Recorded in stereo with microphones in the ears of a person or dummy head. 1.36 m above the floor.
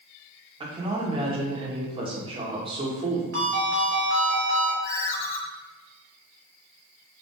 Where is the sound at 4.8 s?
45° left (ahead or behind), 1.5 m.